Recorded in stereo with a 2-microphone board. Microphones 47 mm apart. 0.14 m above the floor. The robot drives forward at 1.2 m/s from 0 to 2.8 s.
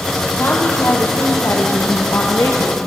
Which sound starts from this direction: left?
A woman speaking, at 0.4 s.